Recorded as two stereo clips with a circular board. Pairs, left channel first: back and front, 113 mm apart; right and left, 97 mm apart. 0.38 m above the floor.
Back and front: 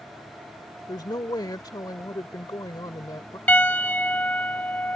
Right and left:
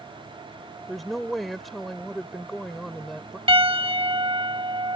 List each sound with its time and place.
0.9 s a woman speaking: straight behind
3.5 s a piano: 105° left